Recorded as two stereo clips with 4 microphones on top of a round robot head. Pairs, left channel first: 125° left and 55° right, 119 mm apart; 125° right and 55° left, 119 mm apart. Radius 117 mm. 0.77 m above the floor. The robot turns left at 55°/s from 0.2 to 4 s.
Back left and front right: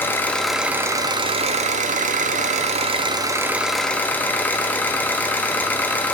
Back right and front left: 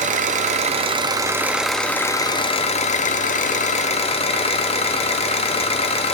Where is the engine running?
50° left, 0.7 m; by 6.1 s 160° right, 0.7 m.